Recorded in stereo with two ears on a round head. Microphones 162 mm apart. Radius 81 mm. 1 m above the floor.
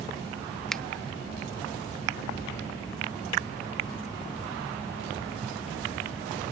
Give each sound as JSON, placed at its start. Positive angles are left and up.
{"t": 0.7, "sound": "a finger snap", "side_deg": 5}